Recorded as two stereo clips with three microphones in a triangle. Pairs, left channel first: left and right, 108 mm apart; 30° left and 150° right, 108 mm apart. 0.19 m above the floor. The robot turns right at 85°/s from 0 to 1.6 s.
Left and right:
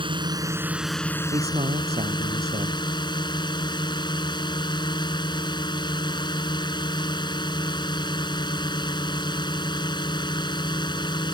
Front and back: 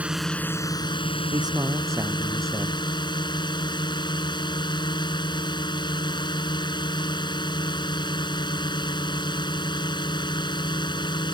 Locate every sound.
0.0 s a drone: 75° right; by 11.3 s 60° left
1.3 s a man speaking: 115° right; by 2.8 s 90° right